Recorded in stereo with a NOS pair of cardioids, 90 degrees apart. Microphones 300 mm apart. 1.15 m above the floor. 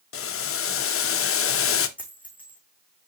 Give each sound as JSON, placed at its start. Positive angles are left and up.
{"t": 0.1, "sound": "boiling", "azimuth_deg": 45, "distance_m": 0.8}
{"t": 2.0, "sound": "a dropped coin", "azimuth_deg": 5, "distance_m": 4.5}